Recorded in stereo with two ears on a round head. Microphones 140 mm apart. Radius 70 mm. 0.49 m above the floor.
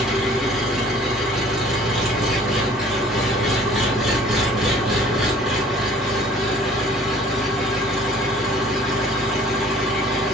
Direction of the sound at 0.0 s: Centre (ahead or behind).